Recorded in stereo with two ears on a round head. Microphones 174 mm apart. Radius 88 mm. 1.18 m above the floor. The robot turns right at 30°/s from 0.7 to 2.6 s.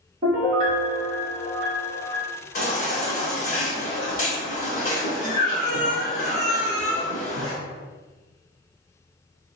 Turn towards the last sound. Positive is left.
turn(degrees=40)  # may be behind; listen again after turning